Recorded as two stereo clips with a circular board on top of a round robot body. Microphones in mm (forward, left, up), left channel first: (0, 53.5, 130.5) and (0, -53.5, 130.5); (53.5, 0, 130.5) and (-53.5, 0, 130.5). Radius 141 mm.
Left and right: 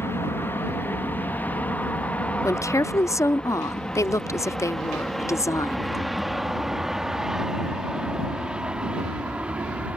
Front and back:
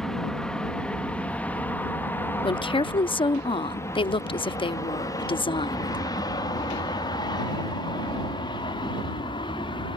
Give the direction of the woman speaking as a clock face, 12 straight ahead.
11 o'clock.